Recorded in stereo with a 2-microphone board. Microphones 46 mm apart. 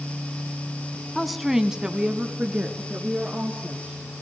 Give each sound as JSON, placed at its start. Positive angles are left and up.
{"t": 1.1, "sound": "a woman speaking", "side_deg": 5, "distance_m": 1.3}